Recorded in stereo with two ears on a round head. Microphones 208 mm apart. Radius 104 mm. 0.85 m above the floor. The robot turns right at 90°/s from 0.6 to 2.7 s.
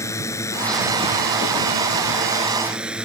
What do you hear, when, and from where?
0.0 s a drone: 165° left; by 3.1 s 5° right